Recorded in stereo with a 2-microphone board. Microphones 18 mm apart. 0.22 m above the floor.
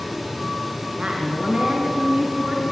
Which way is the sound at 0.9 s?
50° right (ahead or behind).